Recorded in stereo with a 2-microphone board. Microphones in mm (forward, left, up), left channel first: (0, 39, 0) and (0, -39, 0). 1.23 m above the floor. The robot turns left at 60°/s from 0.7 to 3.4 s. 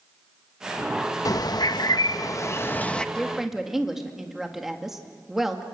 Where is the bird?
120° left, 0.6 m; by 3.0 s 15° left, 0.6 m.